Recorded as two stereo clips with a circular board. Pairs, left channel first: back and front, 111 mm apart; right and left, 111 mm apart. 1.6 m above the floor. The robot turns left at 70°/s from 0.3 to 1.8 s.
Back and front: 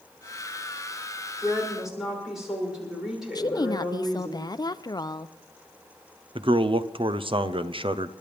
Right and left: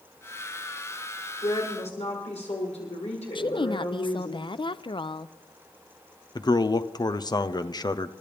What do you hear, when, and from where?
1.4 s a woman speaking: 60° right, 6.5 m; by 4.3 s 85° right, 6.5 m
3.4 s a woman speaking: 130° right, 0.6 m
6.3 s a man speaking: 40° right, 0.6 m